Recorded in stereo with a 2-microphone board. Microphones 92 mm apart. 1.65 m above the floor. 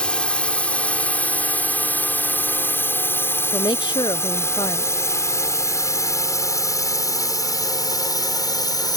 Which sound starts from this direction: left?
A woman speaking, at 3.5 s.